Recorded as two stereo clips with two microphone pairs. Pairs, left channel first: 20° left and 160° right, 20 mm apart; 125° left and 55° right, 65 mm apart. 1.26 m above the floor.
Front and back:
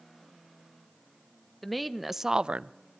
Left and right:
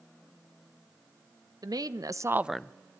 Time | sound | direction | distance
1.6 | a woman speaking | 65° right | 1.4 m